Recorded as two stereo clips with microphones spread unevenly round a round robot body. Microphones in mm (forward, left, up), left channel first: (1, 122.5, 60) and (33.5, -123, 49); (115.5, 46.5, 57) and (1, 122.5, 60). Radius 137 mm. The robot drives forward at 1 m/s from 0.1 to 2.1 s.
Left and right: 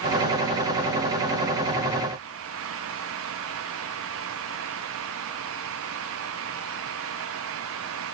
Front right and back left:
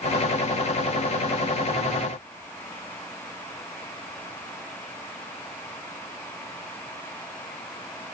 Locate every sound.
Only background noise.